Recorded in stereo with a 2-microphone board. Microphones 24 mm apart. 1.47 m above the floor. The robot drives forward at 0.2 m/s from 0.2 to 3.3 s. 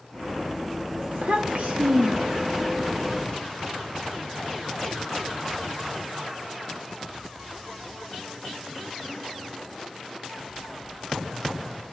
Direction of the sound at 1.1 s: 65° right (ahead or behind).